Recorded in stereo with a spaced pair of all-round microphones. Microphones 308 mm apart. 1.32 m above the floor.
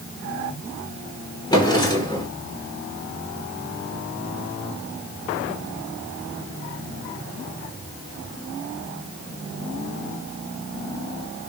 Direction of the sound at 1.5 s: 15° left (ahead or behind).